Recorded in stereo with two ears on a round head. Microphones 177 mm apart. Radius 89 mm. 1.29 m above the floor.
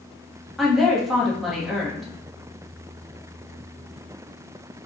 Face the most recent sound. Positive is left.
turn(degrees=0)  # may be behind; listen again after turning